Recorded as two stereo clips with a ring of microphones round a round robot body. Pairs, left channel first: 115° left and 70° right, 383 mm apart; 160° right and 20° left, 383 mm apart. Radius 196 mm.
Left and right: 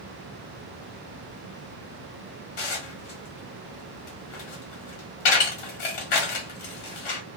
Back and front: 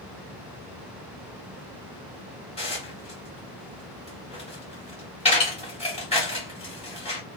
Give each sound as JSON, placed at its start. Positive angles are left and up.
{"t": 2.6, "sound": "dishes clattering", "azimuth_deg": 130, "distance_m": 1.3}